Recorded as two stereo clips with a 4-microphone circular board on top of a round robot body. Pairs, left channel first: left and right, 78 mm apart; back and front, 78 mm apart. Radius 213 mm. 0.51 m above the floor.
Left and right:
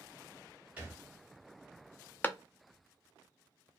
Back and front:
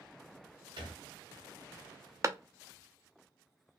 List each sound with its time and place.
0.8 s a thud: 15° right, 0.7 m
2.2 s a clap: 30° left, 0.6 m